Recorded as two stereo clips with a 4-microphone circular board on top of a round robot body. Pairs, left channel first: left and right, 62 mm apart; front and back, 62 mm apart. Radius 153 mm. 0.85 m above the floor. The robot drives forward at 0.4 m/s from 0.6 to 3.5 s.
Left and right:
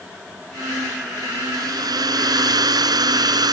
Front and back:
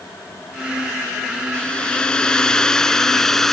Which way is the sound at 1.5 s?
75° right.